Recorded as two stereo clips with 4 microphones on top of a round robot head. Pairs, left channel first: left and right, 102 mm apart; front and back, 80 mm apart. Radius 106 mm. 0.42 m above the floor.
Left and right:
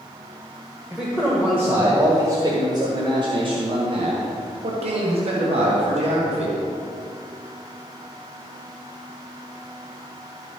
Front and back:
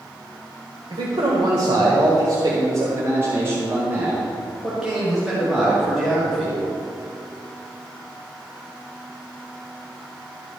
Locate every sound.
0.9 s a man speaking: 175° right, 1.9 m; by 6.6 s 80° right, 3 m